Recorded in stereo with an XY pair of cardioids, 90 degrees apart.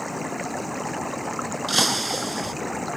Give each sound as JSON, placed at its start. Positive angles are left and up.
{"t": 0.0, "sound": "running water", "azimuth_deg": 0}
{"t": 1.7, "sound": "breaking glass", "azimuth_deg": -15}